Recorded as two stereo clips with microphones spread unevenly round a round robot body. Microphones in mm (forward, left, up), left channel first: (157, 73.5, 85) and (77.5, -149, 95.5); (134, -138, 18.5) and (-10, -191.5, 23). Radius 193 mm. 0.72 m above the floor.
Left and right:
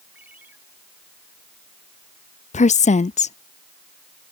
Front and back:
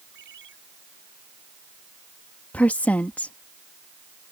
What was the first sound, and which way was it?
A ringtone, 165° left.